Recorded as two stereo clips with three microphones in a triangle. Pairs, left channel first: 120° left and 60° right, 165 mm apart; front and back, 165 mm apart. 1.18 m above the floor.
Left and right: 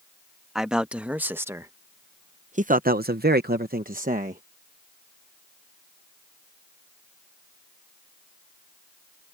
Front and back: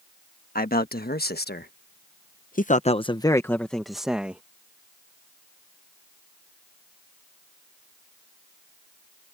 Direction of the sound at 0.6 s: 25° left.